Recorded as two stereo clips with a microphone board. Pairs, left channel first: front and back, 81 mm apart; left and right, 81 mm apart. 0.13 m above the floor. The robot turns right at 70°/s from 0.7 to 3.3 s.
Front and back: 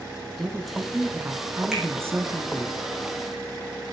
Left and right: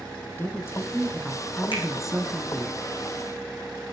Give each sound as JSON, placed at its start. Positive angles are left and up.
{"t": 0.4, "sound": "a woman speaking", "azimuth_deg": 90, "distance_m": 1.3}
{"t": 1.7, "sound": "a finger snap", "azimuth_deg": 90, "distance_m": 8.0}